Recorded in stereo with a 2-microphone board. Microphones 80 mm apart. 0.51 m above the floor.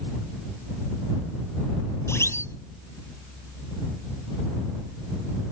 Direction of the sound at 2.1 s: 35° left (ahead or behind).